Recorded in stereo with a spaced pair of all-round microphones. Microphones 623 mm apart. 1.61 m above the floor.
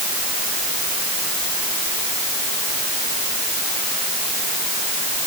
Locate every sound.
Only background noise.